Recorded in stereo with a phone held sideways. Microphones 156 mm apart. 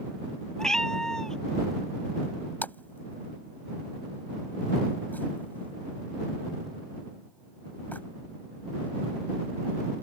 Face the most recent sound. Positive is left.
turn(degrees=10)  # may be behind; listen again after turning